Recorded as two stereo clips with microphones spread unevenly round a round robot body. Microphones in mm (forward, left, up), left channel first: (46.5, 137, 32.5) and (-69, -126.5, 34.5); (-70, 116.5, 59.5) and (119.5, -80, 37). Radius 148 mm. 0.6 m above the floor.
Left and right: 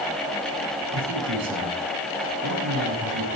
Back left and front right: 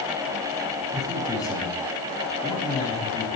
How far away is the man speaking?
About 6.5 m.